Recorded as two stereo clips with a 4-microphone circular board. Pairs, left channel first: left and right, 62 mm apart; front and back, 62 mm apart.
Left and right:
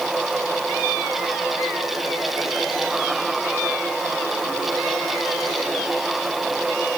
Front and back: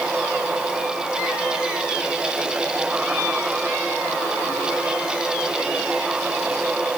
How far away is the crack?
I don't hear a crack.